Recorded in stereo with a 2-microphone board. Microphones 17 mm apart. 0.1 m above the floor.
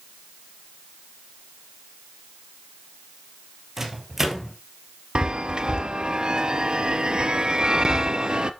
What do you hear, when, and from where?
3.8 s a microwave: 25° right (ahead or behind), 2 m
5.2 s a chime: 50° right (ahead or behind), 0.7 m